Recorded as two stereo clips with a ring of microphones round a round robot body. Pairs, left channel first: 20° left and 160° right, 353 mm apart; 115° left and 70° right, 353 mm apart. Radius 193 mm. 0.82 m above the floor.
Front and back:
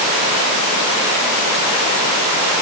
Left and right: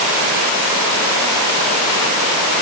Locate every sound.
Only background noise.